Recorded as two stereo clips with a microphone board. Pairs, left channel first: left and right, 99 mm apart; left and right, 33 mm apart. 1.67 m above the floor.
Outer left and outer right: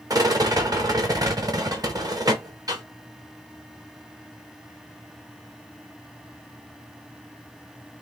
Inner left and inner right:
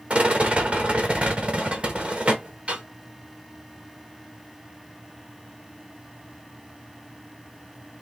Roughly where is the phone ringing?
No phone ringing in this recording.